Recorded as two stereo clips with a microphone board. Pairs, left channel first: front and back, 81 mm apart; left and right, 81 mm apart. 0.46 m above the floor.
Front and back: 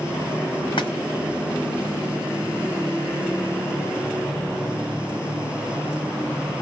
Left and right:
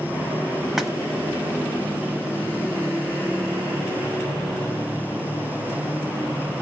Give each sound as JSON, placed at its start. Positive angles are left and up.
{"t": 0.8, "sound": "a splash", "azimuth_deg": -5, "distance_m": 0.7}